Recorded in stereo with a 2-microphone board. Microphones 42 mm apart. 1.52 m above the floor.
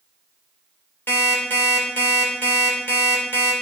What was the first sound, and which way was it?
An alarm clock, 65° left (ahead or behind).